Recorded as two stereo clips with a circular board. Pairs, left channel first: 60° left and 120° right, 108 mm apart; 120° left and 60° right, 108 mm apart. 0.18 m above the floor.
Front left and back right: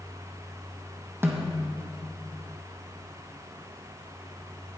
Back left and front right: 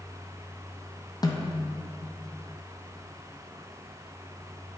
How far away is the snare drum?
About 1.3 m.